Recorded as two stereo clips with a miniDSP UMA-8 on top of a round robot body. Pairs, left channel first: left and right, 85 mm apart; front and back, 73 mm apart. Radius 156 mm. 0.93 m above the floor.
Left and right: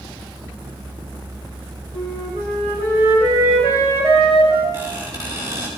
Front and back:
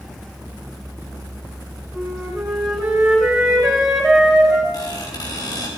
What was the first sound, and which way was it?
A flute, 95° right.